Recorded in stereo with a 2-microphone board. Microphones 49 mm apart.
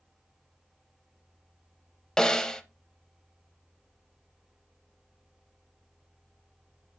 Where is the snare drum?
15° left (ahead or behind), 0.6 m.